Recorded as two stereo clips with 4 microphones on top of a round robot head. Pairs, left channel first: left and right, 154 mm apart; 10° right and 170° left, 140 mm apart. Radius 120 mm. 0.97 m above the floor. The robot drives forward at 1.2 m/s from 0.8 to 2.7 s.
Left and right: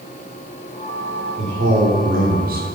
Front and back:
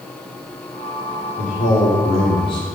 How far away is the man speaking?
About 3 m.